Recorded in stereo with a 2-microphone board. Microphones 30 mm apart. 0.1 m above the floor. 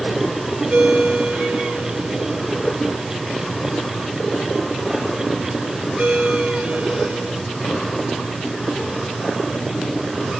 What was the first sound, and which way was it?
A ringtone, 60° right (ahead or behind).